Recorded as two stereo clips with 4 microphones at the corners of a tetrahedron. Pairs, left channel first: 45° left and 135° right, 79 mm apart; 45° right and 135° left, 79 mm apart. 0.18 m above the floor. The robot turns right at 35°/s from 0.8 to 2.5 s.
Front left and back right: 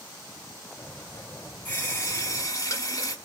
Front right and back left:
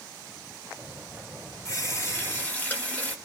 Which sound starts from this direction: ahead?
A running tap, at 1.6 s.